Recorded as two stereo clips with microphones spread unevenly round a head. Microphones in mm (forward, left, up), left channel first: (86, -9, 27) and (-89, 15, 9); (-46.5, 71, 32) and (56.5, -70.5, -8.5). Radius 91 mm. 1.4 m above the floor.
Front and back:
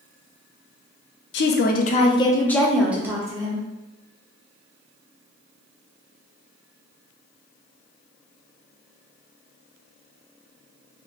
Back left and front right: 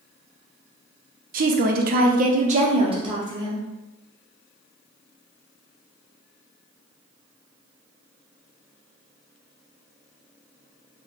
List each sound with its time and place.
1.3 s a woman speaking: 30° right, 0.7 m; by 3.6 s 125° right, 1.1 m